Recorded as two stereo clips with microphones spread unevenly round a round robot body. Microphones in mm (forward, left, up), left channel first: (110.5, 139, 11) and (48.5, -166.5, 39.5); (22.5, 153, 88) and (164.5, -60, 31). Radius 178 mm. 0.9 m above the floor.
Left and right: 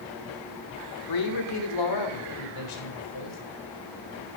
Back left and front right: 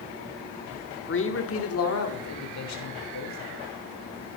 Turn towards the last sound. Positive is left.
turn(degrees=110)